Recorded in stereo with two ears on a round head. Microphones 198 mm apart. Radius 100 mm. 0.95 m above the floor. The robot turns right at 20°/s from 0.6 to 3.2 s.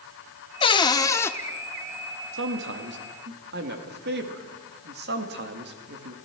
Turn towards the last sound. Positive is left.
turn(degrees=-45)  # may be behind; listen again after turning